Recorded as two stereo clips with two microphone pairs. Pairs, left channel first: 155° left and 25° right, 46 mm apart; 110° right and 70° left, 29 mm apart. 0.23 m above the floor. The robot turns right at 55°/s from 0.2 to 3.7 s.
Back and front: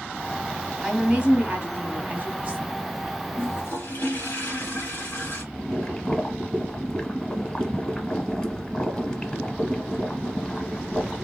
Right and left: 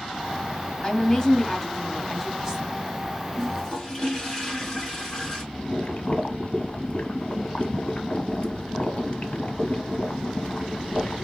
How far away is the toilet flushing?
About 3 m.